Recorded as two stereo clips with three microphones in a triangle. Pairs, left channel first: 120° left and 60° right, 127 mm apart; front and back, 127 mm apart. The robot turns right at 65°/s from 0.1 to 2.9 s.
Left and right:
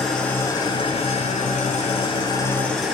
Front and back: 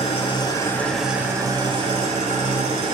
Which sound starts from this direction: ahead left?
An engine running, at 0.0 s.